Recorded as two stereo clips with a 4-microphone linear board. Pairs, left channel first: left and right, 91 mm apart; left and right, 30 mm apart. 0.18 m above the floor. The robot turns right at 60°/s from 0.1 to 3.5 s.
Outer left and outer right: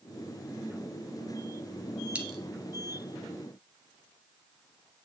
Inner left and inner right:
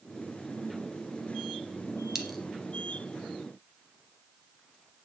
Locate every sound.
2.1 s a dropped coin: 10° right (ahead or behind), 1.4 m; by 2.4 s centre (ahead or behind), 1.4 m